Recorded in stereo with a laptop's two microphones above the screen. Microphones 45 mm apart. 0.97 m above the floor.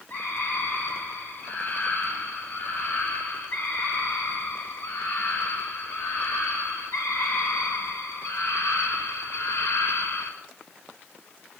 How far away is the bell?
I don't hear a bell.